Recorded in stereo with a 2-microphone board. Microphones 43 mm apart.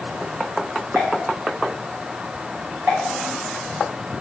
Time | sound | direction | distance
0.9 | a pop | 45° right (ahead or behind) | 5.5 m